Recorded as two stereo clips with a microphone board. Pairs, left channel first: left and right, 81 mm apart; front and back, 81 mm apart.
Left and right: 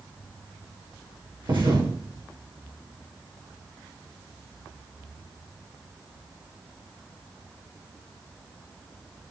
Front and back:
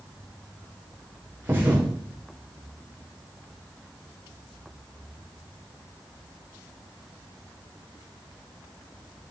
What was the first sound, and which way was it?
A thud, 120° right.